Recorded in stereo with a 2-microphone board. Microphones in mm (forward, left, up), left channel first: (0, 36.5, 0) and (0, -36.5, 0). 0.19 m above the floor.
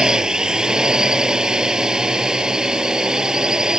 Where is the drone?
10° right (ahead or behind).